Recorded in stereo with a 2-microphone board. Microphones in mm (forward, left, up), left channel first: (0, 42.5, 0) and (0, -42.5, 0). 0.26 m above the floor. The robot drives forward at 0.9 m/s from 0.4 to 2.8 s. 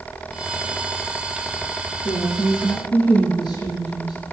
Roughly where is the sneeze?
No sneeze in this recording.